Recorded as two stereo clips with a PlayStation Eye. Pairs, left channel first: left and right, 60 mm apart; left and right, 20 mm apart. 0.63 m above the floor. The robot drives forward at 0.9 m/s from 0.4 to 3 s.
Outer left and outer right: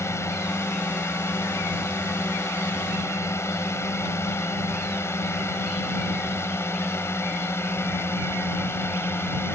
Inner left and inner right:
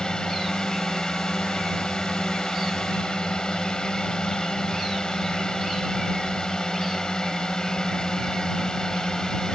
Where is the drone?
50° left (ahead or behind); by 9.6 s 40° left (ahead or behind).